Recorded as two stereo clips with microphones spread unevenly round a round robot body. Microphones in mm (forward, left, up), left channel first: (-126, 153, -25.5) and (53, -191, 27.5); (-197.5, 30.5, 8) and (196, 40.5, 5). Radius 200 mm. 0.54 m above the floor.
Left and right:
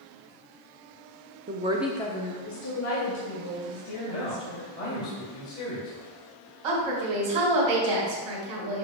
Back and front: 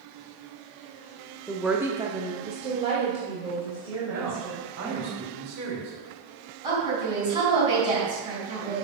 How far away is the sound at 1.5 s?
About 0.8 m.